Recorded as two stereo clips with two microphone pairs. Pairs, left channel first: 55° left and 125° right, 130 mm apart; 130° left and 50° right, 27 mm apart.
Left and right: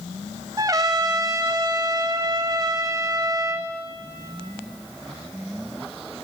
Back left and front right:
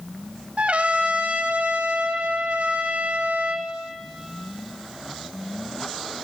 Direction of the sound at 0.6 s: 65° right.